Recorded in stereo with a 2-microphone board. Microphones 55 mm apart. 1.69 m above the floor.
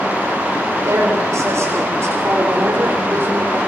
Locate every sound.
0.8 s a woman speaking: 70° right (ahead or behind), 8 m; by 3.6 s 45° right (ahead or behind), 5.5 m